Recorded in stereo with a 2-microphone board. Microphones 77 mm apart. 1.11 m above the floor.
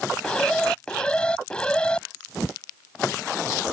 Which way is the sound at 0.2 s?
15° left (ahead or behind).